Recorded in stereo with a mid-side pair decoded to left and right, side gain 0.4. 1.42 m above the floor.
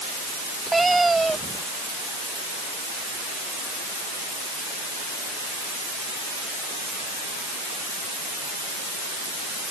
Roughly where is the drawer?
I don't hear a drawer.